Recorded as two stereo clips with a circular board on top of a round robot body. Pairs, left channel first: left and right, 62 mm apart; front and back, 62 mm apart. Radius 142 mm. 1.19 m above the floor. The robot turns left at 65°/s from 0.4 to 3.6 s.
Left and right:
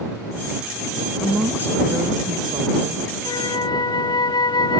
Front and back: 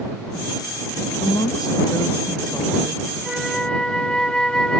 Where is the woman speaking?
Straight ahead; by 3.0 s 120° right.